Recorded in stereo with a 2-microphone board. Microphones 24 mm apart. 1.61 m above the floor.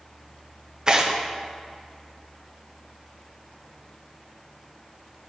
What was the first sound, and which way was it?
Tearing paper, 30° right (ahead or behind).